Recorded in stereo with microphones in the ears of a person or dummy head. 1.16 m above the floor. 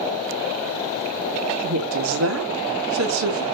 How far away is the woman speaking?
About 1.6 m.